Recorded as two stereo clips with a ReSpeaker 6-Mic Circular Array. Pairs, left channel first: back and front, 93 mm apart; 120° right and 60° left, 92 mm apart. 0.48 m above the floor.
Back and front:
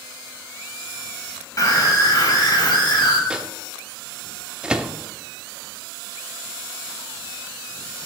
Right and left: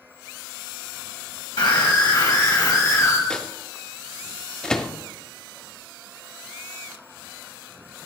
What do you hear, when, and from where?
1.6 s a scream: 140° right, 3 m; by 3.2 s 170° right, 2.5 m
3.3 s a microwave: 55° right, 0.6 m